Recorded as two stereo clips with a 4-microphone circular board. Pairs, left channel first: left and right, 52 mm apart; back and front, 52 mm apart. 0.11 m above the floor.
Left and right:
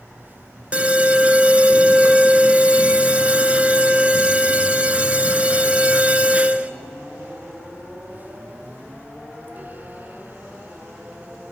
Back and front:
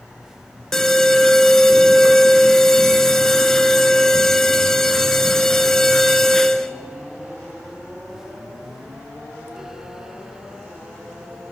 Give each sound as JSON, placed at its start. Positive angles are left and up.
{"t": 0.7, "sound": "an alarm", "azimuth_deg": -110, "distance_m": 0.8}